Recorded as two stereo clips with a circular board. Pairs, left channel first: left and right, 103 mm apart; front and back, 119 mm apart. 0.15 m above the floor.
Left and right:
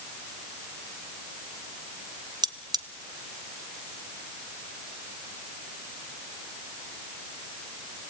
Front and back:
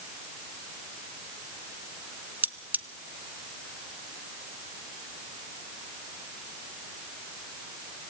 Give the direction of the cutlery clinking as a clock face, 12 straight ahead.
4 o'clock.